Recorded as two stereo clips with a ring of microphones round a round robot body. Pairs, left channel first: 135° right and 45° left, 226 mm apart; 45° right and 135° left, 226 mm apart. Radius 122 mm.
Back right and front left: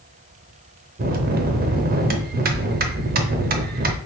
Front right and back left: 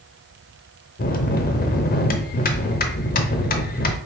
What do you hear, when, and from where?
1.0 s a bell: straight ahead, 0.6 m